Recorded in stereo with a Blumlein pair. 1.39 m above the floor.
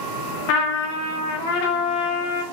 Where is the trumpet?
45° left, 0.7 m.